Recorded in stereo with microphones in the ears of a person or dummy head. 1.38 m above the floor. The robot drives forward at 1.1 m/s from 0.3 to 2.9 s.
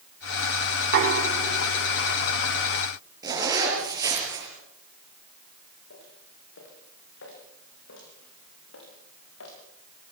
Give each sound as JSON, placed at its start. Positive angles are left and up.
{"t": 0.8, "sound": "knocking", "side_deg": -55, "distance_m": 3.0}
{"t": 3.2, "sound": "a zipper", "side_deg": -20, "distance_m": 6.5}
{"t": 5.9, "sound": "footsteps", "side_deg": 60, "distance_m": 8.0}